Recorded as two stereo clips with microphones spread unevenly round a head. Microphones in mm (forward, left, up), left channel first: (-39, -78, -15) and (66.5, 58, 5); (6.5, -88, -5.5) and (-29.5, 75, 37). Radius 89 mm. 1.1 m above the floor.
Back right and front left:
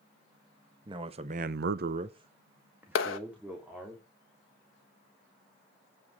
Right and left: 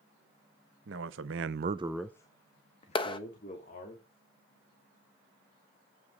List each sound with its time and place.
0.8 s a man speaking: 120° left, 1.4 m; by 4.0 s 35° right, 3.5 m
3.0 s a clap: 135° right, 1.2 m